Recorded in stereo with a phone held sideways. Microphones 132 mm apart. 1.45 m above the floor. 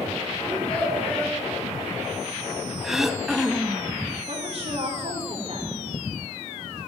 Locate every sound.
0.4 s a child speaking: 10° left (ahead or behind), 7.5 m
2.8 s throat clearing: centre (ahead or behind), 0.6 m
4.3 s a woman speaking: 45° right (ahead or behind), 3 m